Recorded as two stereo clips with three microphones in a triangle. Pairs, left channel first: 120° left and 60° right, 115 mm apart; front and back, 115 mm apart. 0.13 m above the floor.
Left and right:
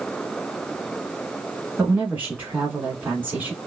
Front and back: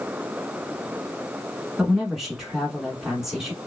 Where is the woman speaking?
100° right, 1.2 m.